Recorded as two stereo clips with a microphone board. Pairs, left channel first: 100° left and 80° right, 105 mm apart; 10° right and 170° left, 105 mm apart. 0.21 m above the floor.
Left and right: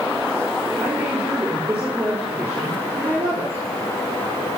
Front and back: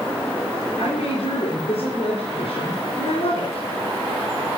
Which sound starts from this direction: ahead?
A woman speaking, at 0.8 s.